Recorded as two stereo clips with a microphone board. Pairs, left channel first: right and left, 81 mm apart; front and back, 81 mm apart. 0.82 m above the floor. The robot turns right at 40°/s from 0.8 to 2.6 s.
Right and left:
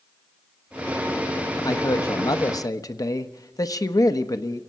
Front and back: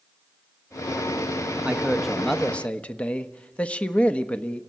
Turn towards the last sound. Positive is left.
turn(degrees=-70)